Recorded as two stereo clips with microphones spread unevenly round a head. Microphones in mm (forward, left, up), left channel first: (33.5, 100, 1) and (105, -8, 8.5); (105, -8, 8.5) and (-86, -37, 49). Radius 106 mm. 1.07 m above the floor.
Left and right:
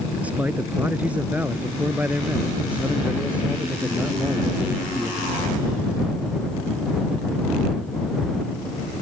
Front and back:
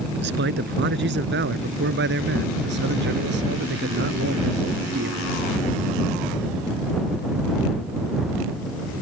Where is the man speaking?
140° right.